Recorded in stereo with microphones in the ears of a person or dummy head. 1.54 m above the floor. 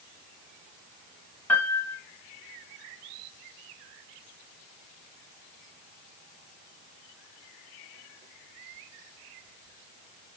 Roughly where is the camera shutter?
No camera shutter in this recording.